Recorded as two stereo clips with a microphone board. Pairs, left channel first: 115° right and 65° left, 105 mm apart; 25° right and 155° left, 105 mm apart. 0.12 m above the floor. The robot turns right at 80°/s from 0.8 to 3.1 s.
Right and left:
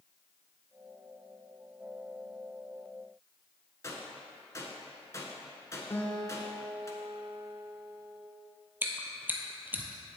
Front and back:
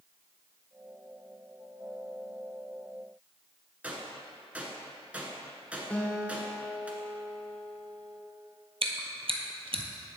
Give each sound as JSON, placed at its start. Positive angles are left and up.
{"t": 3.8, "sound": "a gunshot", "azimuth_deg": -140, "distance_m": 1.1}
{"t": 5.9, "sound": "a guitar", "azimuth_deg": -80, "distance_m": 1.1}
{"t": 8.8, "sound": "chewing", "azimuth_deg": 140, "distance_m": 0.8}